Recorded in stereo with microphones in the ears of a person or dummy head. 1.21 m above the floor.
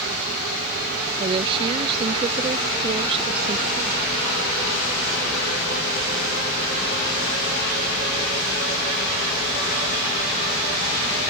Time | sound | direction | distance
1.2 | a woman speaking | 30° right (ahead or behind) | ?